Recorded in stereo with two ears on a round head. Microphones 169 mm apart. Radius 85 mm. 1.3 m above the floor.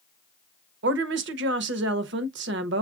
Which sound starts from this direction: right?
A woman speaking, at 0.8 s.